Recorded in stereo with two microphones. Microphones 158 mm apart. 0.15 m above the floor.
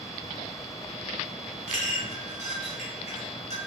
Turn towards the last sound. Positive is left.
turn(degrees=50)  # may be behind; listen again after turning